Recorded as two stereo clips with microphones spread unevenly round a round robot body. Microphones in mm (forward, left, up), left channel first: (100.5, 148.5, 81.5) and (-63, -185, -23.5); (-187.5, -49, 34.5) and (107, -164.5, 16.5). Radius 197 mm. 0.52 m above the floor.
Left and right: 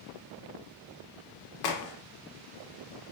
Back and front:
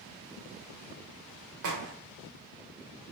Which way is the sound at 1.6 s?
30° left.